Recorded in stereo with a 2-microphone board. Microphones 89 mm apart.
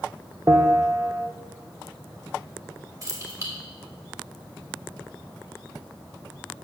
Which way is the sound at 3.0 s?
40° right (ahead or behind).